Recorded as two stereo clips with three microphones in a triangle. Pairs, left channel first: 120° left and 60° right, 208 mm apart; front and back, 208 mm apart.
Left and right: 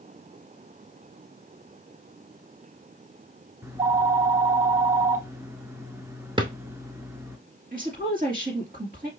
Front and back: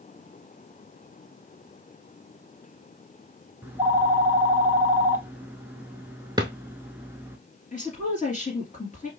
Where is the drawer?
115° right, 0.7 m.